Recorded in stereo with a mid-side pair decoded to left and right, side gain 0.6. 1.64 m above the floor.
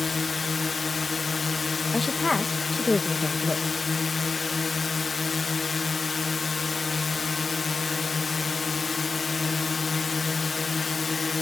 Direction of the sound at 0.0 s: 25° left.